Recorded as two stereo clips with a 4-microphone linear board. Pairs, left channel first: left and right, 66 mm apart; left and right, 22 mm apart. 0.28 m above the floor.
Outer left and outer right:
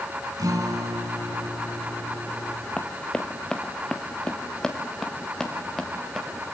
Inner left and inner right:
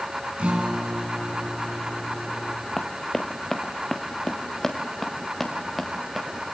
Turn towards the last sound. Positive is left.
turn(degrees=5)  # may be behind; listen again after turning